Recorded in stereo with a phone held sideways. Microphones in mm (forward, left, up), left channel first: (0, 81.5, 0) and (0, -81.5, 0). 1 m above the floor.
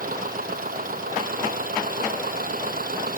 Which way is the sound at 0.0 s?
60° right (ahead or behind).